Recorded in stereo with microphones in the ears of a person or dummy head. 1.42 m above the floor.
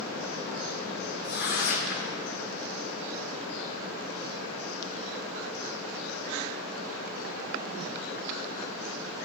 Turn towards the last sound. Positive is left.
turn(degrees=60)  # may be behind; listen again after turning